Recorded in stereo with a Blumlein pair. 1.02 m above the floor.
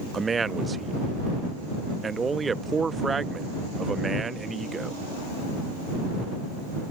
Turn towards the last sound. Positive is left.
turn(degrees=-15)